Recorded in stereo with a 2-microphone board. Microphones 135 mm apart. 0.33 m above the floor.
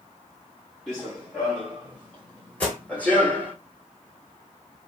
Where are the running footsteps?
Centre (ahead or behind), 2.5 m; by 3.5 s 15° left (ahead or behind), 1.1 m.